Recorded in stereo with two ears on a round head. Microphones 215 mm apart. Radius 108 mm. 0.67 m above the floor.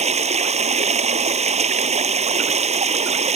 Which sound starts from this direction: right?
Running water, at 0.0 s.